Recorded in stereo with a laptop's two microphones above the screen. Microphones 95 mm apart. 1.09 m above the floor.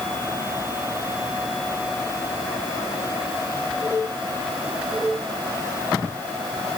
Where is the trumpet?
I don't hear a trumpet.